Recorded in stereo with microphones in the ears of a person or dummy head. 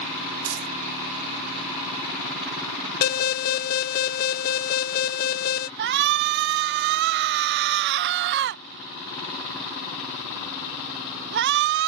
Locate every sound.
0.5 s crumpling: 80° right
3.0 s an alarm: 40° left (ahead or behind)
5.8 s a shout: 60° right (ahead or behind)